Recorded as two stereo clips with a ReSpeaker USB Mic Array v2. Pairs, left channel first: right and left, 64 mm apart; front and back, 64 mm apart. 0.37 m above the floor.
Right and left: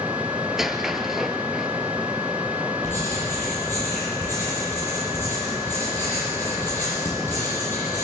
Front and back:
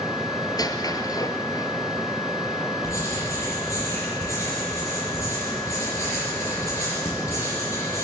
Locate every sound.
0.5 s a squeak: 5° left, 1.3 m
2.8 s writing: 40° right, 9 m